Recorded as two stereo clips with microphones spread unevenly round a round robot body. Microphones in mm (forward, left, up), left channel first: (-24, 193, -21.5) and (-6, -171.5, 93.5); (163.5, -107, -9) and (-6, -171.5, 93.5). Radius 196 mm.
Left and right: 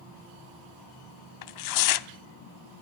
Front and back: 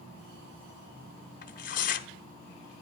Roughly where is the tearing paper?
Ahead left.